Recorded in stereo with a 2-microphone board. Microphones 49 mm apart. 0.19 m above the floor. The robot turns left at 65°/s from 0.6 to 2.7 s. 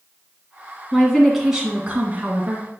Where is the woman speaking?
25° left, 2 m; by 2.7 s 90° right, 2 m.